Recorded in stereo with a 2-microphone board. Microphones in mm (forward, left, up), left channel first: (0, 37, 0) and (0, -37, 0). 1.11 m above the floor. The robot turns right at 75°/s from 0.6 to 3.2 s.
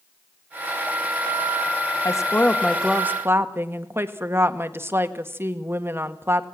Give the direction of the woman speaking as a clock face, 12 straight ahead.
8 o'clock.